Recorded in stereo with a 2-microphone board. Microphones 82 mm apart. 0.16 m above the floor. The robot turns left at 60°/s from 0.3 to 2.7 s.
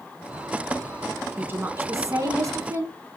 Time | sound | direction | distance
1.4 | a woman speaking | 35° right | 1.7 m